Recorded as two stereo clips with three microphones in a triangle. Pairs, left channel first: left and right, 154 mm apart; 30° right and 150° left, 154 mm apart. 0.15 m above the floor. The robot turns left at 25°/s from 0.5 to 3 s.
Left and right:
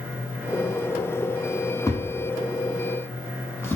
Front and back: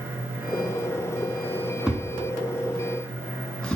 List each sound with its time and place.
1.9 s a thud: 75° left, 0.5 m; by 3.8 s 45° left, 0.5 m